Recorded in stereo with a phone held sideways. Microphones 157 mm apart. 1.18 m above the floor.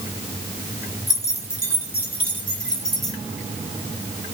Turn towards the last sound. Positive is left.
turn(degrees=0)  # may be behind; listen again after turning